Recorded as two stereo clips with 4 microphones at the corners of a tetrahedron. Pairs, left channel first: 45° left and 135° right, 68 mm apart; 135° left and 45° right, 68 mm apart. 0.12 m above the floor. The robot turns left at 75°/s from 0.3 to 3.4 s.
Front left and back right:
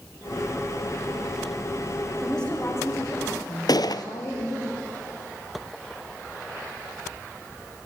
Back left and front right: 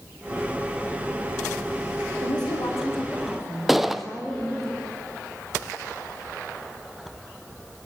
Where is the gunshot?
40° left, 0.9 m.